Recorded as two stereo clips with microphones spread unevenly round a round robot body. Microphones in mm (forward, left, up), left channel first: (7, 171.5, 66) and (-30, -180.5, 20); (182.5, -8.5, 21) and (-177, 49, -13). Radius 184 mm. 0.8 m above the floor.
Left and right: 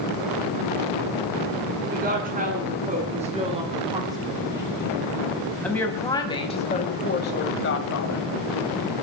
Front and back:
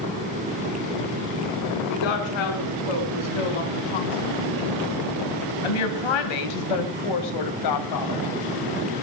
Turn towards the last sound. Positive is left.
turn(degrees=35)